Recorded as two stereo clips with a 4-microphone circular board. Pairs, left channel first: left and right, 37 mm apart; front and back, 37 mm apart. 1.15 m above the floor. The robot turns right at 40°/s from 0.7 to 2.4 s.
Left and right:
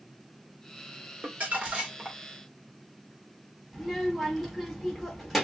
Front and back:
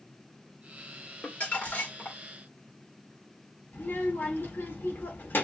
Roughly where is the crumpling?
Ahead right.